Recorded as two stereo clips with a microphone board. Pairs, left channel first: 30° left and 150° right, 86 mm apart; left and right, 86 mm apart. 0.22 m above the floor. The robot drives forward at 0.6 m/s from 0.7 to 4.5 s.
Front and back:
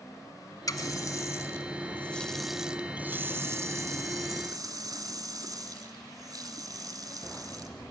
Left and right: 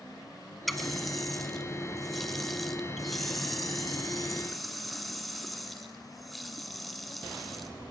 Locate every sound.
0.7 s a running tap: straight ahead, 1.3 m; by 7.7 s straight behind, 1.5 m